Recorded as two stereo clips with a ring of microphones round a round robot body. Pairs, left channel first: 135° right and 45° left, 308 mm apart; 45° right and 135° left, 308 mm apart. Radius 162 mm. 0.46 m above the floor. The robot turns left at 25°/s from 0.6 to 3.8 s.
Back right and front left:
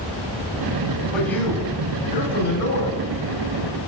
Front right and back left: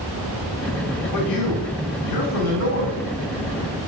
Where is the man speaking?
45° right, 3.5 m; by 3.0 s 90° right, 3.5 m.